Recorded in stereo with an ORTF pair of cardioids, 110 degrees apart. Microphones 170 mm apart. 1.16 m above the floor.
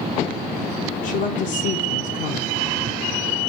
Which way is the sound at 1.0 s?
65° left.